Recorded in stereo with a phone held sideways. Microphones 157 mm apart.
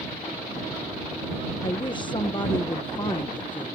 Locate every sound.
1.6 s a woman speaking: 30° left (ahead or behind)